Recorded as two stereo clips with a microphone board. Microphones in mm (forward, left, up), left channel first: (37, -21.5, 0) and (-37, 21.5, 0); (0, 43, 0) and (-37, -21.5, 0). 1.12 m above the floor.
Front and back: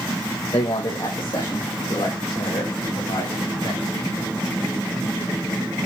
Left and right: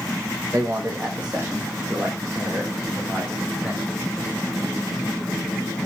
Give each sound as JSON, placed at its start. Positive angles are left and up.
{"t": 0.5, "sound": "a man speaking", "azimuth_deg": -60, "distance_m": 0.9}